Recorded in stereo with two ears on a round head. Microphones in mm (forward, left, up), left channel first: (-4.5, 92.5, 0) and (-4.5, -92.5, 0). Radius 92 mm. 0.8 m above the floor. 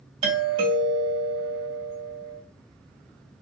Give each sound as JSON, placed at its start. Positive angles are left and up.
{"t": 0.2, "sound": "a doorbell", "side_deg": -25, "distance_m": 1.6}